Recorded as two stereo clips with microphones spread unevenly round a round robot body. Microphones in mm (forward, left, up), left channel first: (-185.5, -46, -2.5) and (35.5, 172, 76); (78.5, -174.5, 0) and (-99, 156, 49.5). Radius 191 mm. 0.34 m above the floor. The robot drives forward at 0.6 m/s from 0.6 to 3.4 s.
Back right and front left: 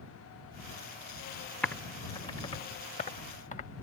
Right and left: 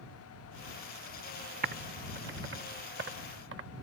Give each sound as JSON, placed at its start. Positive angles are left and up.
{"t": 1.6, "sound": "typing on a keyboard", "azimuth_deg": 175}